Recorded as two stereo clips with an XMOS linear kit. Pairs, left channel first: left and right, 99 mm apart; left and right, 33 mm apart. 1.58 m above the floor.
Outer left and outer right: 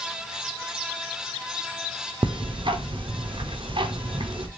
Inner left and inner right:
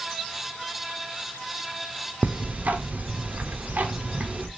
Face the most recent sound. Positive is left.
turn(degrees=-60)  # may be behind; listen again after turning